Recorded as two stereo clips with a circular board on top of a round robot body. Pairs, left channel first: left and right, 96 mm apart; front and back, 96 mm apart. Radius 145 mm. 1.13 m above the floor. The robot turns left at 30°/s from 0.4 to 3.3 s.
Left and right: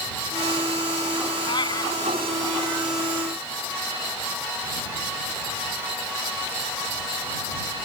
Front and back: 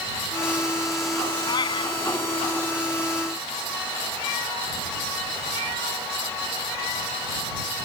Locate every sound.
1.5 s a cat meowing: 50° left; by 2.0 s 30° left